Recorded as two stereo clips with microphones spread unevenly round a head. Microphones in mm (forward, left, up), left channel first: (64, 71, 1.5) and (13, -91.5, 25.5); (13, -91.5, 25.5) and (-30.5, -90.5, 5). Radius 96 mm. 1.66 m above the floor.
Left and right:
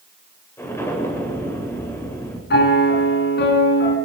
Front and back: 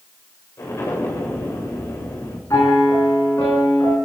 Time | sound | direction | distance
0.6 | an explosion | 5° right | 9.5 m
2.5 | a piano | 50° left | 7 m